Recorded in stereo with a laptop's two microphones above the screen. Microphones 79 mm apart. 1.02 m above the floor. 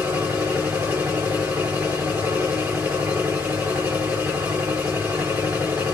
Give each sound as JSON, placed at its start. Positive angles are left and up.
{"t": 0.0, "sound": "a machine running", "side_deg": -25, "distance_m": 1.8}